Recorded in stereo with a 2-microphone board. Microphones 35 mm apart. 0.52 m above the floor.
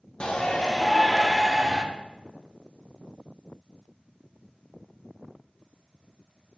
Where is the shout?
30° left (ahead or behind), 1.0 m; by 1.8 s 20° right (ahead or behind), 1.0 m.